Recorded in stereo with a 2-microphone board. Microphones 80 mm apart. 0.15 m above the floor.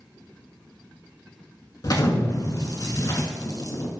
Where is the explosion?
50° left (ahead or behind), 0.5 m.